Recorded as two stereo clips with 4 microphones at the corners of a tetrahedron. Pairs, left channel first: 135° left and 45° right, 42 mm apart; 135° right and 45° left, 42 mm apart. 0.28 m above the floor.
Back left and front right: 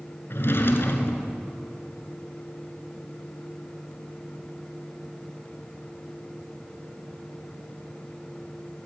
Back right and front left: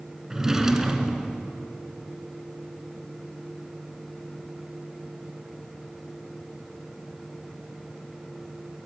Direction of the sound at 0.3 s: 120° left.